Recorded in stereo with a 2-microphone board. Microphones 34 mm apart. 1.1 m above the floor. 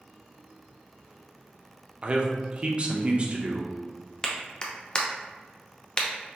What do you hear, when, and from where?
2.0 s a man speaking: 35° right (ahead or behind), 0.5 m
4.2 s a clap: 25° left (ahead or behind), 0.5 m